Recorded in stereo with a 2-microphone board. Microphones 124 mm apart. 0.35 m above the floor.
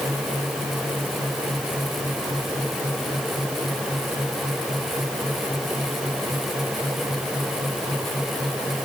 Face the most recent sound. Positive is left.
No sound to turn to.